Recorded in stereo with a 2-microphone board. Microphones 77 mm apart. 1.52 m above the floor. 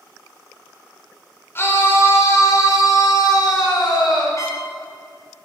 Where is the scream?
30° left (ahead or behind), 4.5 m; by 4.3 s 70° left (ahead or behind), 5 m.